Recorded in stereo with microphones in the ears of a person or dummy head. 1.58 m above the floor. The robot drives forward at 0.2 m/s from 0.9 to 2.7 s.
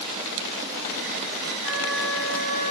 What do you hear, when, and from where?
1.6 s a flute: 45° right (ahead or behind), 3.5 m; by 2.7 s 40° right (ahead or behind), 3.5 m